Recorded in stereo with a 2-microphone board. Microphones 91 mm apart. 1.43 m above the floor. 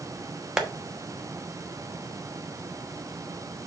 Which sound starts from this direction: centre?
Tapping, at 0.6 s.